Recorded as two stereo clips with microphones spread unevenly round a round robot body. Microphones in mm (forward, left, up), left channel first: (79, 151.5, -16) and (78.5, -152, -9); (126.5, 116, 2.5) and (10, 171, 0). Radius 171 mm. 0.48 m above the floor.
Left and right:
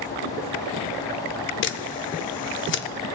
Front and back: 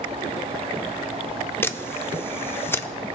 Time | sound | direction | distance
1.6 | a camera shutter | 45° left | 0.6 m